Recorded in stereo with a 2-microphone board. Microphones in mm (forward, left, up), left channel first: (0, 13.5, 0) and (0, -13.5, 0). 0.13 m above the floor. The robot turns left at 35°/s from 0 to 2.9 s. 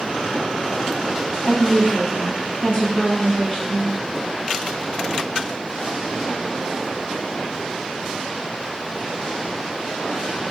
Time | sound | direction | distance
1.4 | a woman speaking | 125° left | 1.4 m